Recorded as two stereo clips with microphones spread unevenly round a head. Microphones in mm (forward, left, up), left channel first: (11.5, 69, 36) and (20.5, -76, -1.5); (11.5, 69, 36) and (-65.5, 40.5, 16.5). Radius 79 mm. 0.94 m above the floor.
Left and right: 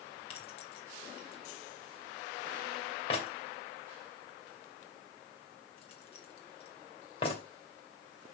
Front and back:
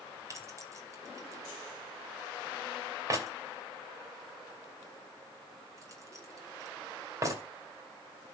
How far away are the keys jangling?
About 2.5 m.